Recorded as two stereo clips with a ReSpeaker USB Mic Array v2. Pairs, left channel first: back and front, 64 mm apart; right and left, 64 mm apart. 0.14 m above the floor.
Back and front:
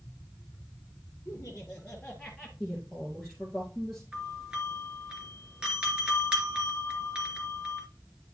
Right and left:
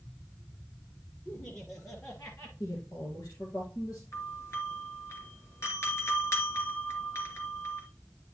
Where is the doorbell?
70° right, 2.5 m.